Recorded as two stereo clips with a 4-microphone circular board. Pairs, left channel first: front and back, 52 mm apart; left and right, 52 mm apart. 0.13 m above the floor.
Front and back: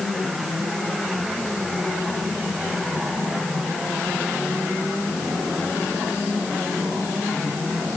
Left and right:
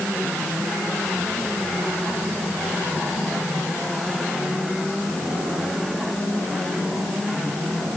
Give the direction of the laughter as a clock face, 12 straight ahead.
I don't hear laughter.